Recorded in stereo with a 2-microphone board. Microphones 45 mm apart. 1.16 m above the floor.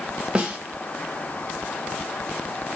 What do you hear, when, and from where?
0.3 s a snare drum: 25° right (ahead or behind), 0.7 m